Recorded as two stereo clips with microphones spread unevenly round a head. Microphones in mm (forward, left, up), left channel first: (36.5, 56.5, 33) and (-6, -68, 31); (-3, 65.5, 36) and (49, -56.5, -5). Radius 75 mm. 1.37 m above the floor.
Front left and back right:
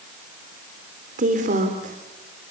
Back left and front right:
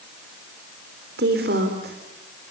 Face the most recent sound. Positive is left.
turn(degrees=-80)